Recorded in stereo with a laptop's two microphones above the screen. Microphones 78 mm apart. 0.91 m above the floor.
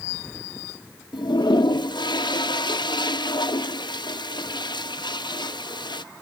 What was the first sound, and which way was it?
A toilet flushing, 70° left (ahead or behind).